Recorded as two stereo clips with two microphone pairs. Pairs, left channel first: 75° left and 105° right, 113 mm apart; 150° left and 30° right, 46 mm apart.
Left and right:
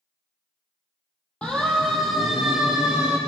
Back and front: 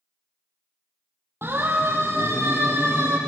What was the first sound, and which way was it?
A siren, 5° right.